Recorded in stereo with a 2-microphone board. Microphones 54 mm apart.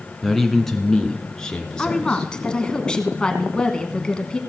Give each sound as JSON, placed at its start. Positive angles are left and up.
{"t": 0.2, "sound": "a man speaking", "side_deg": 0, "distance_m": 1.3}
{"t": 1.8, "sound": "a woman speaking", "side_deg": 15, "distance_m": 1.3}